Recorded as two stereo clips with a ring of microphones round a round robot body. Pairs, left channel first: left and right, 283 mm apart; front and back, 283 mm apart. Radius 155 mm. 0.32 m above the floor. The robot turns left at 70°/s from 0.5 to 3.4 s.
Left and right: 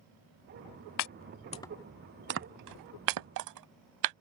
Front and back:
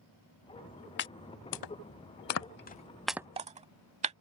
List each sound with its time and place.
1.0 s chopping: 55° left; by 4.2 s 110° right